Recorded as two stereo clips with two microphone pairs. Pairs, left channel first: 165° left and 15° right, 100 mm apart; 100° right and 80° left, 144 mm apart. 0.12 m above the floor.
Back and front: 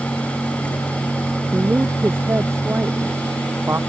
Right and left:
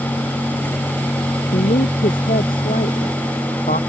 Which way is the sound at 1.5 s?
85° right.